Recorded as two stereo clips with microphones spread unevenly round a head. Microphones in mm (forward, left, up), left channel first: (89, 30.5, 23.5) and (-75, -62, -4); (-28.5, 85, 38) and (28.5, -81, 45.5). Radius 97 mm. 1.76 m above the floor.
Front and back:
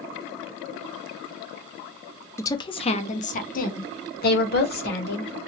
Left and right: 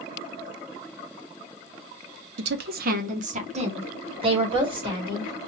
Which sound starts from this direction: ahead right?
A woman speaking, at 2.4 s.